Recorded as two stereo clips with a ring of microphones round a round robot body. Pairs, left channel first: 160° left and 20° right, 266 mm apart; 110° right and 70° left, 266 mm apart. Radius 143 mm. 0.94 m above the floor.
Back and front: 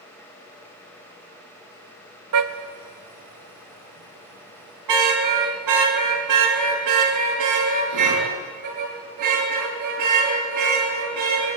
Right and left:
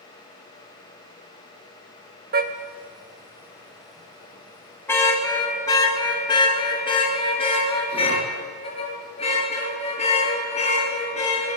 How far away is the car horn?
About 2 m.